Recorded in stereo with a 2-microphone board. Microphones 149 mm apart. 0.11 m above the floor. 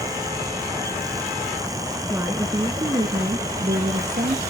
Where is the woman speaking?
15° right (ahead or behind), 1.3 m; by 4.4 s 55° right (ahead or behind), 2 m.